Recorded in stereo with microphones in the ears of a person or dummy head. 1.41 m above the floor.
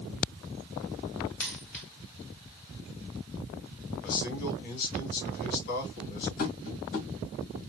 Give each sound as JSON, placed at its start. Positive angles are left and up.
{"t": 1.4, "sound": "a dropped coin", "side_deg": 5, "distance_m": 3.0}
{"t": 4.0, "sound": "a man speaking", "side_deg": 55, "distance_m": 2.5}
{"t": 6.4, "sound": "tapping", "side_deg": 50, "distance_m": 1.7}